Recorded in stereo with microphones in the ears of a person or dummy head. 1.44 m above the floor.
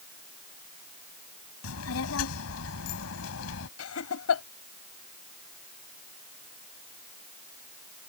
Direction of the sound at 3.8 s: 85° left.